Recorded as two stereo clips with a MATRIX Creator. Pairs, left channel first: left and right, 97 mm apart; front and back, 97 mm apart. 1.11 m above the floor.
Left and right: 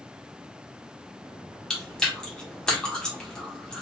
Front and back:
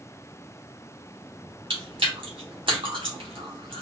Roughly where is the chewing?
Behind.